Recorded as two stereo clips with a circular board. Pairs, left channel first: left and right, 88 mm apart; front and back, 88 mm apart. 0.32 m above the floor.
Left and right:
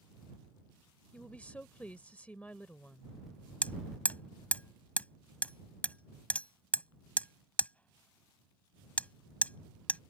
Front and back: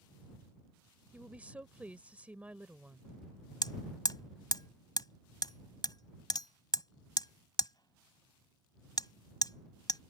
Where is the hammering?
20° left.